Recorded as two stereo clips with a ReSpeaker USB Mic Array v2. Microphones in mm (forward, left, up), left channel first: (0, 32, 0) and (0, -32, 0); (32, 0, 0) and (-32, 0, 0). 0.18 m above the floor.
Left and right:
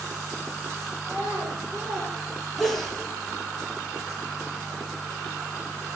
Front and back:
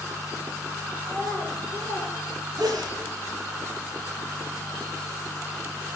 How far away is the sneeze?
About 4.5 m.